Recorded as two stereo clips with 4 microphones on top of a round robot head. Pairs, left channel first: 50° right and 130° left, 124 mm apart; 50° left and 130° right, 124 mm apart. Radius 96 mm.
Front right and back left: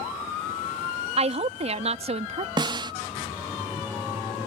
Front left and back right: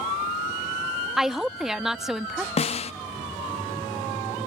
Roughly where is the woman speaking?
Behind left.